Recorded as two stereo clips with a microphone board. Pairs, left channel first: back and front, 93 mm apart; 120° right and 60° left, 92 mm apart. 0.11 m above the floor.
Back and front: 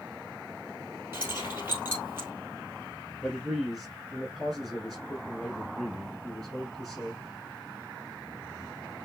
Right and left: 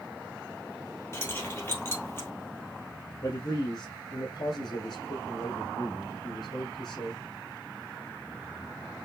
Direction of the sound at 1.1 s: 60° right.